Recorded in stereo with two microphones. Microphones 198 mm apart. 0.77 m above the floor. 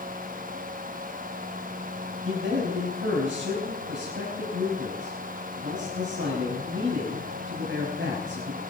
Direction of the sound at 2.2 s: 75° right (ahead or behind).